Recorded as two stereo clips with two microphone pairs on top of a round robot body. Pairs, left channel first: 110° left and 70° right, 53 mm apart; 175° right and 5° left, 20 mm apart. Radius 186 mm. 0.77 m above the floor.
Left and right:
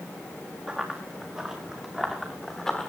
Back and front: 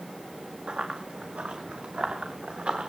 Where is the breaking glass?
No breaking glass in this recording.